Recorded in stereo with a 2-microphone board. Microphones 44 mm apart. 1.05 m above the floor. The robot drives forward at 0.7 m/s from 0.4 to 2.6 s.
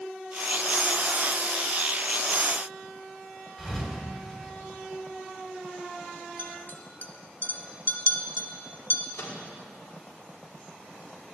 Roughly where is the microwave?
Left.